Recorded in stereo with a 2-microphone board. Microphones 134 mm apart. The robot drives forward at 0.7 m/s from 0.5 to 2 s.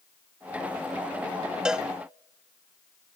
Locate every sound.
1.6 s a cowbell: 5° right (ahead or behind), 0.6 m